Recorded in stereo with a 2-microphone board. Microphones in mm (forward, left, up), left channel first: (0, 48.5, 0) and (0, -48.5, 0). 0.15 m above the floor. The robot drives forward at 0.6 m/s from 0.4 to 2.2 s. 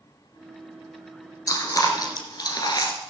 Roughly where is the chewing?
Left.